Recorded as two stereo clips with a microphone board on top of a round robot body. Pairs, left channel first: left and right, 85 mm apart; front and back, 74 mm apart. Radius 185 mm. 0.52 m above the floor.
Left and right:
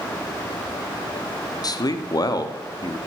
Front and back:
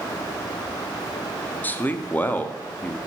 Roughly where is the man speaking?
Ahead left.